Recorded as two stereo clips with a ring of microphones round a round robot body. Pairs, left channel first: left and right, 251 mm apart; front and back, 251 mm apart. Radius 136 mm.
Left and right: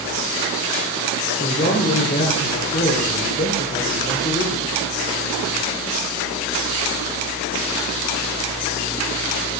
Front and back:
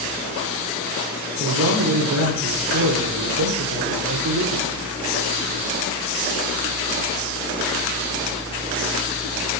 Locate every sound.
1.4 s a man speaking: 155° left, 1.9 m